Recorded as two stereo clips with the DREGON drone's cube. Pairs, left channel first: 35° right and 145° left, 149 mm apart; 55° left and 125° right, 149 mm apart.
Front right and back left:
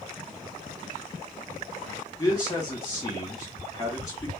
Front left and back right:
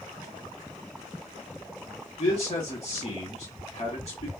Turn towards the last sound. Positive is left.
turn(degrees=25)